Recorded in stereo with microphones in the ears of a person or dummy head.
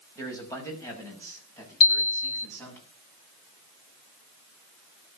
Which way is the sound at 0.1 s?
15° left (ahead or behind).